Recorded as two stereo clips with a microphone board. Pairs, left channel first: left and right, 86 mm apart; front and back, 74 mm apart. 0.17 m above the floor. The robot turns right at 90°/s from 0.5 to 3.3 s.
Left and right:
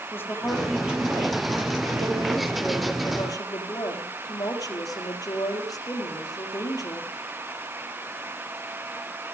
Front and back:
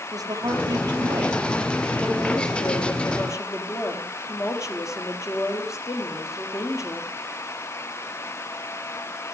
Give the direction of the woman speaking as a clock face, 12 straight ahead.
7 o'clock.